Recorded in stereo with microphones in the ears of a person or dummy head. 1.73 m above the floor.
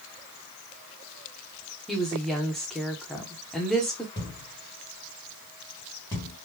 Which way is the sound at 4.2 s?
15° left (ahead or behind).